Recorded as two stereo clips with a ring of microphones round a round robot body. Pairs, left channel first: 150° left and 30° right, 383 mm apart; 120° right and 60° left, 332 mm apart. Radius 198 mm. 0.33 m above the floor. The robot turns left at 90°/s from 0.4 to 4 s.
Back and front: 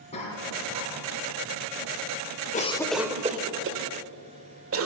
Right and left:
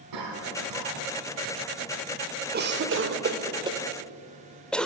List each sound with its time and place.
0.1 s a cough: 75° left, 3.5 m; by 1.6 s 35° right, 3.5 m
2.5 s a cough: 95° left, 1.2 m; by 4.9 s 35° right, 1.2 m